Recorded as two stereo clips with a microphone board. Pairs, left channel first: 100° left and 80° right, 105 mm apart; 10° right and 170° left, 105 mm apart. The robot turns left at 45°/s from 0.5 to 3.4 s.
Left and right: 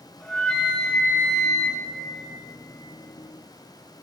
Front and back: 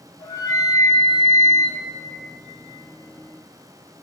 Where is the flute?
20° left, 1.9 m; by 1.8 s 40° right, 1.9 m.